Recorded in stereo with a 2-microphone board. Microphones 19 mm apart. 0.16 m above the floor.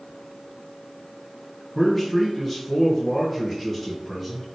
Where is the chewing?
No chewing in this recording.